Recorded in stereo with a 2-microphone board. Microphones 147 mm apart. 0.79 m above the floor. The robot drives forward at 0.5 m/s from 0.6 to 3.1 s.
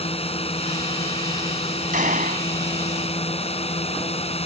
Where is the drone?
40° left (ahead or behind); by 4.5 s 45° left (ahead or behind).